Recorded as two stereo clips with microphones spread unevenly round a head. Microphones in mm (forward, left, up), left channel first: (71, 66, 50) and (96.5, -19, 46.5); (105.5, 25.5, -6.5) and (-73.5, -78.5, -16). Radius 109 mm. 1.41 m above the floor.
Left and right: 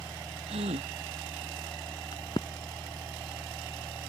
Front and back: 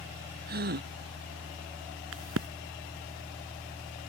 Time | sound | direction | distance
0.5 | a gasp | 105° right | ?
2.1 | a crack | 175° left | ?